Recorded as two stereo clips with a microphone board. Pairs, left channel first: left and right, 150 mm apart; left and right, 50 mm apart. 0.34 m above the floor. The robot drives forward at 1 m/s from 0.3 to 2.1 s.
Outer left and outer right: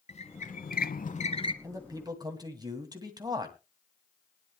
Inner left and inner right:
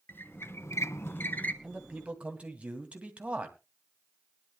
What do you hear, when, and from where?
0.1 s a squeak: 45° left (ahead or behind), 0.7 m; by 1.5 s 35° left (ahead or behind), 0.9 m
1.6 s a man speaking: 25° right (ahead or behind), 2.5 m